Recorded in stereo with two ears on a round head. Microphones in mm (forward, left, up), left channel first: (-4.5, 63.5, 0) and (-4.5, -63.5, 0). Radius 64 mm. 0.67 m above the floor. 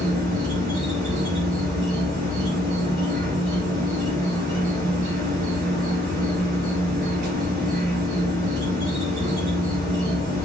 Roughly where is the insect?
Right.